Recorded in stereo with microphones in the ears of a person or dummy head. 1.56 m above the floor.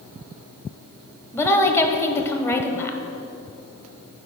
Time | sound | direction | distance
1.3 | a woman speaking | 15° left (ahead or behind) | 0.9 m